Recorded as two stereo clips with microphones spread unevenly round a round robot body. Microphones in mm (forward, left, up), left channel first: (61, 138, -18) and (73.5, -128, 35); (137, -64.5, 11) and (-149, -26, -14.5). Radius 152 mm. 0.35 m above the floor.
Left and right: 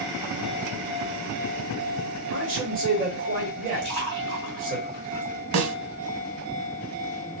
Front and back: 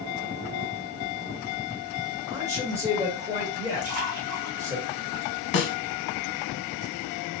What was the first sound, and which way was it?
A man speaking, 135° right.